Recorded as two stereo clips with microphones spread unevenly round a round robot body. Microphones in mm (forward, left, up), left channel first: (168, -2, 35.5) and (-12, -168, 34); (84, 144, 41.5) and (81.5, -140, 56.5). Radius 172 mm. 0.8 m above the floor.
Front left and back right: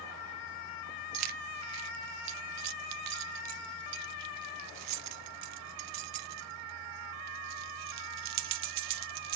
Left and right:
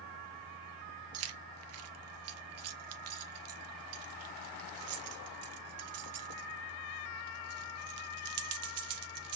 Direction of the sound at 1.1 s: 135° right.